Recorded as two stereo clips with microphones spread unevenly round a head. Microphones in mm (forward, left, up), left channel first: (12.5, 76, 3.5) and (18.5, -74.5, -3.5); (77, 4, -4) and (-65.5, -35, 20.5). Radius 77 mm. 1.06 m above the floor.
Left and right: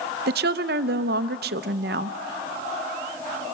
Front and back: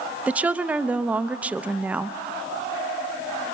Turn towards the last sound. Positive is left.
turn(degrees=-80)